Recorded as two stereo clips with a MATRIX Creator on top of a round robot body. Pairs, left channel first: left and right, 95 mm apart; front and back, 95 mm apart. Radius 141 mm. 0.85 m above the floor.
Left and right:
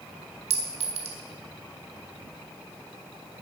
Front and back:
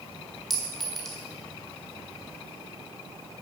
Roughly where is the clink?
Right.